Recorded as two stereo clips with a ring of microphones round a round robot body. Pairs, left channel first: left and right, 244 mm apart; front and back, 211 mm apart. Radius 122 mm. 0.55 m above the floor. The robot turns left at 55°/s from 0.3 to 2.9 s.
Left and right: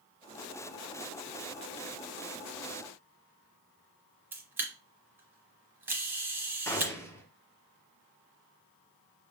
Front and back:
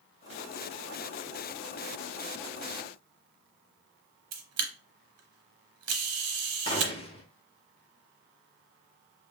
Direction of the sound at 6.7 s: 25° left.